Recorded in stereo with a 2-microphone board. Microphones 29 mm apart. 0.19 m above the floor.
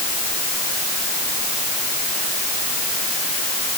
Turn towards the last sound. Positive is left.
No sound to turn to.